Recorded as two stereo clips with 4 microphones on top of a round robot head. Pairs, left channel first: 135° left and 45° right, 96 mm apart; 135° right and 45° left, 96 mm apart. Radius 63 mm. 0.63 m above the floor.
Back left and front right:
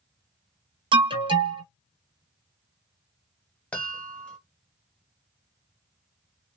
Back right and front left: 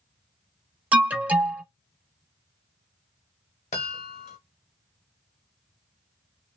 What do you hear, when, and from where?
0.9 s an alarm: 25° right, 0.7 m
3.7 s a chime: 150° right, 0.8 m